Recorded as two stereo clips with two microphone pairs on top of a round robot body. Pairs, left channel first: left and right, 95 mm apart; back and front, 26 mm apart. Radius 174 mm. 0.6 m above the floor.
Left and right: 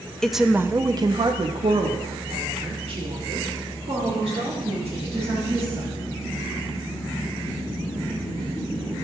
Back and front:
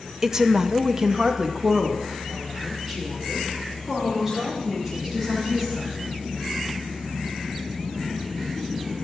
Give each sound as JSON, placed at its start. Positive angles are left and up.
{"t": 0.2, "sound": "a woman speaking", "azimuth_deg": 35, "distance_m": 0.9}